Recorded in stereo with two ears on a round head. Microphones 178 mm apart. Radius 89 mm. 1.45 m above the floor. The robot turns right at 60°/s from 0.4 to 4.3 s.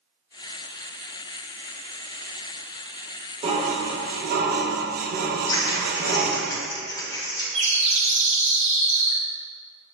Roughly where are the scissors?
Centre.